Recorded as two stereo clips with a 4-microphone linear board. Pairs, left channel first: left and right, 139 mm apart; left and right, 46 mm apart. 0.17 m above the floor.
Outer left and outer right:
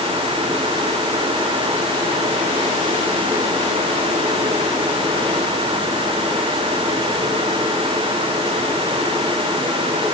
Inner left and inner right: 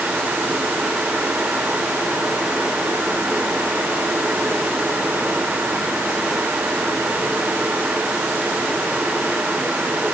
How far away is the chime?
I don't hear a chime.